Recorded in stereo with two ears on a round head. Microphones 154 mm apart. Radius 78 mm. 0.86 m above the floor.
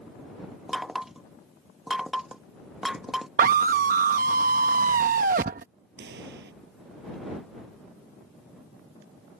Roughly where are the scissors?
No scissors in this recording.